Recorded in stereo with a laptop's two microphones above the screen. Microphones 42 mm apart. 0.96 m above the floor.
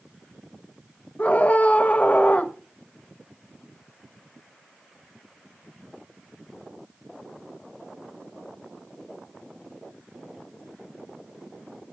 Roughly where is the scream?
Left.